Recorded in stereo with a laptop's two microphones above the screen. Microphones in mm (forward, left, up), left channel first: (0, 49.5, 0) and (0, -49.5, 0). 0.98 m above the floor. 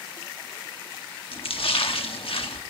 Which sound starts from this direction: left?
A splash, at 1.3 s.